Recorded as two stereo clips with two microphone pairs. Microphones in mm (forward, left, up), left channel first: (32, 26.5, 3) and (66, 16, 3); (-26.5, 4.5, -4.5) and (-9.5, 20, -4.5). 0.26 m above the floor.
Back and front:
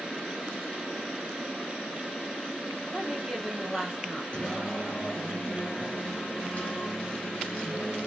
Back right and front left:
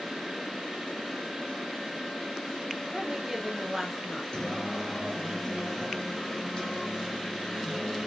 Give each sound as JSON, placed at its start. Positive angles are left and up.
{"t": 2.9, "sound": "a woman speaking", "azimuth_deg": 55, "distance_m": 1.0}
{"t": 4.3, "sound": "singing", "azimuth_deg": -170, "distance_m": 1.5}